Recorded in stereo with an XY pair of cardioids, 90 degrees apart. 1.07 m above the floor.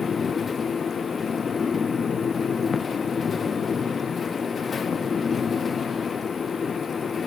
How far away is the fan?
About 0.8 m.